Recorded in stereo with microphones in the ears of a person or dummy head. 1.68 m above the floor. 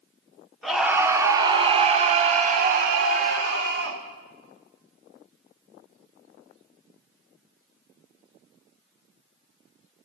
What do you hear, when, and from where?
0.6 s a scream: centre (ahead or behind), 0.9 m; by 4.0 s 70° right (ahead or behind), 1.8 m